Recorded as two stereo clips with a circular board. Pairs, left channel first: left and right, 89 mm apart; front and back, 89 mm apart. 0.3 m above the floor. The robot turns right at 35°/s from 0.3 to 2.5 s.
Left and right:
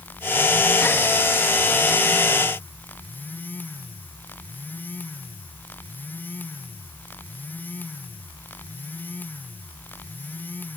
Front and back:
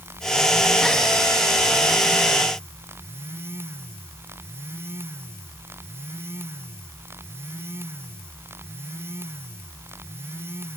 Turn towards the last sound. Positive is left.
No sound to turn to.